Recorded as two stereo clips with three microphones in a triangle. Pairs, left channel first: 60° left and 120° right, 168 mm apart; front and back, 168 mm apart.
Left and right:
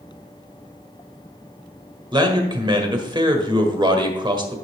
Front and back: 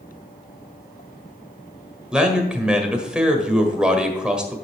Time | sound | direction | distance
2.1 | a man speaking | 100° right | 1.5 m